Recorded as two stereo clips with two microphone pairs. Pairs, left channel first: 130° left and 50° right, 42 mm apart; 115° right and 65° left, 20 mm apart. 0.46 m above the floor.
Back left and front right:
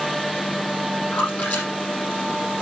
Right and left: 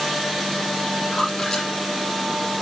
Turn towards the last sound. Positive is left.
turn(degrees=-175)